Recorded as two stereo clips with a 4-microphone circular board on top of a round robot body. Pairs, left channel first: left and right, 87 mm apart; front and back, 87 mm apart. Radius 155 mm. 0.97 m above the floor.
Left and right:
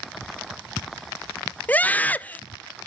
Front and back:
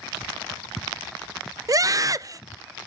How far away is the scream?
About 0.6 m.